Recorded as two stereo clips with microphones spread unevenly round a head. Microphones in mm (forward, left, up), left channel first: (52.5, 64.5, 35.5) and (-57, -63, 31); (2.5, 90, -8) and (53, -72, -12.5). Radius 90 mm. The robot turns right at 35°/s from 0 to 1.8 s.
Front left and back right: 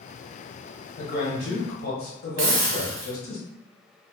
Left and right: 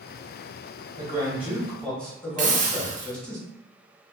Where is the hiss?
115° right, 0.7 m.